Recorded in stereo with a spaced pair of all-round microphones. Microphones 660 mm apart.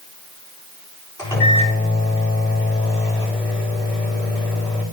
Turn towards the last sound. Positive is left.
turn(degrees=5)  # may be behind; listen again after turning